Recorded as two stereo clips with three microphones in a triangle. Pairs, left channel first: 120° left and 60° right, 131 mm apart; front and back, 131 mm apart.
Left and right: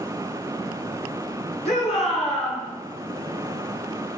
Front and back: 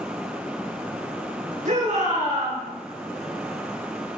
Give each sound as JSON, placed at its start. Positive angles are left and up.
{"t": 1.6, "sound": "a shout", "azimuth_deg": 160, "distance_m": 8.0}